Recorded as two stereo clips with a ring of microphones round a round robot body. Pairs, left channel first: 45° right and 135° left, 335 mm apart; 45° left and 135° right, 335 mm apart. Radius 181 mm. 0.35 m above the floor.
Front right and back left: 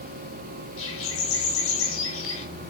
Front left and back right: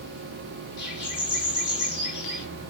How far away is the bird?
About 9.5 m.